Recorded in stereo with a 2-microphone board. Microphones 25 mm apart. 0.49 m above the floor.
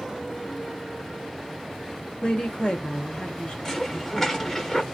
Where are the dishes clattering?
20° left (ahead or behind), 0.8 m.